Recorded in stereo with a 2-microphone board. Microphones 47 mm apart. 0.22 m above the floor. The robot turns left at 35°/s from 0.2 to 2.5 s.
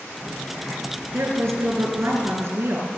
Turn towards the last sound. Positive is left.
turn(degrees=-110)